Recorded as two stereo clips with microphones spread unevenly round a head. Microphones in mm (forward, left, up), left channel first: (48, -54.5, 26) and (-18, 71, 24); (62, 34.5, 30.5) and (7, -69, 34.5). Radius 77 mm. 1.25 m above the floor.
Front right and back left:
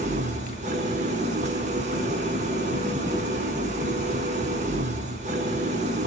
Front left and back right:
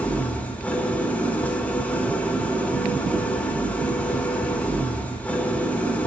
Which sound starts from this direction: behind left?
An engine running, at 0.0 s.